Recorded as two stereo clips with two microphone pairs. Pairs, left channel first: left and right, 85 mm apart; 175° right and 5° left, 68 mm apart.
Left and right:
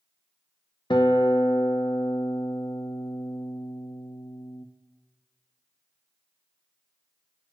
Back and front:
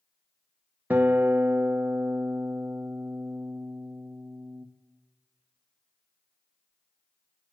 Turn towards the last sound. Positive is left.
turn(degrees=70)